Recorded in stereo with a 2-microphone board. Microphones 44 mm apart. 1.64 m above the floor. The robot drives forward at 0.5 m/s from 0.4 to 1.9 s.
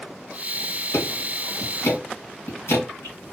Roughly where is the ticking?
Left.